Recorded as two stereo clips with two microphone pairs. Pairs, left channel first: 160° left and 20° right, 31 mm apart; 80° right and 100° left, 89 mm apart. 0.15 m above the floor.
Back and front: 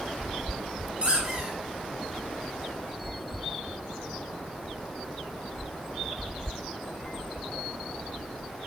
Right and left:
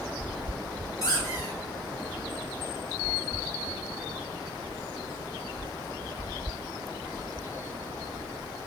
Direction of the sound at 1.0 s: 45° right.